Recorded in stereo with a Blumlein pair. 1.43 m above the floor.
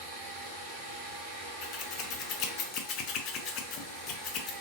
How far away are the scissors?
About 0.6 m.